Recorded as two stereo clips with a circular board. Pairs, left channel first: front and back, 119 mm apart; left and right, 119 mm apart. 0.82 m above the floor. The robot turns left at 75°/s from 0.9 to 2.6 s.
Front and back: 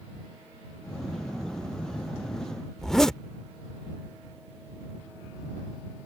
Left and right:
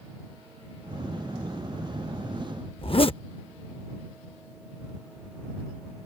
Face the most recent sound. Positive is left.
turn(degrees=85)